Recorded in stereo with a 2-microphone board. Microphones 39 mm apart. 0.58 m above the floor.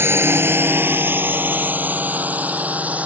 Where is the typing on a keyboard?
I don't hear typing on a keyboard.